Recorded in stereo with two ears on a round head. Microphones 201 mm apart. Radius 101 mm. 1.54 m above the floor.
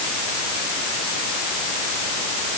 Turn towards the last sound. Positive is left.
No sound to turn to.